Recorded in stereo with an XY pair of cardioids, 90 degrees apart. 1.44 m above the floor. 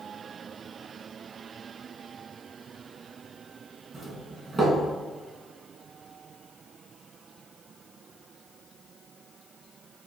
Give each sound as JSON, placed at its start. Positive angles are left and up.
{"t": 3.9, "sound": "a doorbell", "azimuth_deg": -40, "distance_m": 3.0}